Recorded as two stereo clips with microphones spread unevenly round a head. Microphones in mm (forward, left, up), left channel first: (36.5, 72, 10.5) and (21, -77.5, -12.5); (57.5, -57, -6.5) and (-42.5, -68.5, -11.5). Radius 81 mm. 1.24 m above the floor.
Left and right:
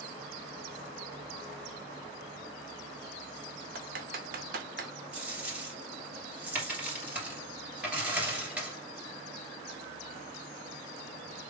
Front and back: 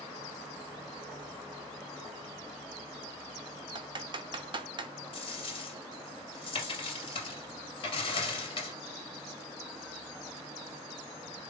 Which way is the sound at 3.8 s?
135° right.